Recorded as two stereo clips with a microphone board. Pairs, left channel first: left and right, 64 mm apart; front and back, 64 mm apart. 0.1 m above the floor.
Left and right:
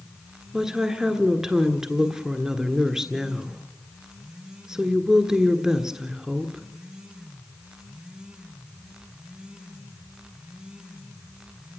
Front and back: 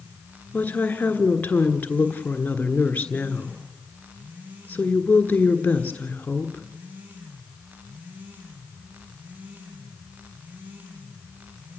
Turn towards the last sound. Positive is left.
turn(degrees=-20)